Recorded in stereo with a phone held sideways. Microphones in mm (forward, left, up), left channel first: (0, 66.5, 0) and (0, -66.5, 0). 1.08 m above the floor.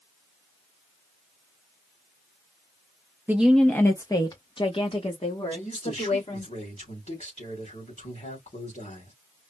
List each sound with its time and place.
3.3 s a woman speaking: 15° right (ahead or behind), 0.6 m; by 6.5 s 55° left (ahead or behind), 2.5 m
5.5 s a man speaking: 60° left (ahead or behind), 3 m